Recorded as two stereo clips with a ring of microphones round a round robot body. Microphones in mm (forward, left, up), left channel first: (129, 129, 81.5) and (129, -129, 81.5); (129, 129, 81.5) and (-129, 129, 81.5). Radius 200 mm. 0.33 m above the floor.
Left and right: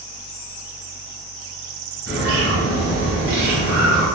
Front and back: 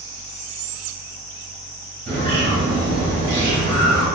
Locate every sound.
2.1 s a bird: 120° right, 1.5 m